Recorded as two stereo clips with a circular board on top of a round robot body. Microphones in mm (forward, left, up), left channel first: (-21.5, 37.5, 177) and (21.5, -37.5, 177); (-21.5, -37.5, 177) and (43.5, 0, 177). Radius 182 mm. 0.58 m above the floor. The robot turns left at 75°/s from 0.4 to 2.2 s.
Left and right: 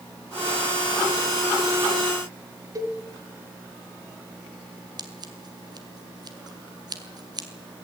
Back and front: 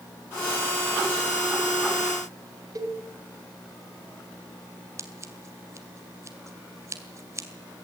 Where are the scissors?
20° right, 2 m.